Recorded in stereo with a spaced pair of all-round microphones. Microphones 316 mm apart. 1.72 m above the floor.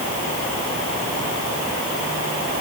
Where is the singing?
No singing in this recording.